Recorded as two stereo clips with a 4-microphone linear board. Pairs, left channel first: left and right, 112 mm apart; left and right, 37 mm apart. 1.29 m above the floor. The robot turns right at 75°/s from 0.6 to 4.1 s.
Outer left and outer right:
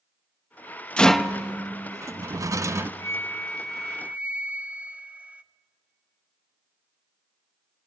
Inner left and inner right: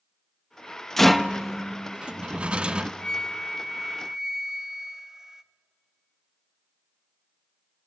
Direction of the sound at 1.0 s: 10° left (ahead or behind).